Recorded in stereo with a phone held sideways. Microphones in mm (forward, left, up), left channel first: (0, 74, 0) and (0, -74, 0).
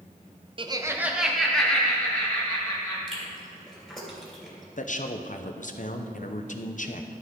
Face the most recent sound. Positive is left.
turn(degrees=60)  # may be behind; listen again after turning